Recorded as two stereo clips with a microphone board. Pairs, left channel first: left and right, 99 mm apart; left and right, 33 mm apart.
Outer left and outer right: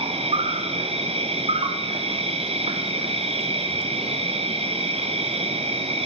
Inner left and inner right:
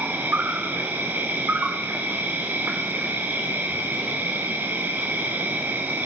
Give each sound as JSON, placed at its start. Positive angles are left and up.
{"t": 0.0, "sound": "an insect", "side_deg": -80, "distance_m": 1.1}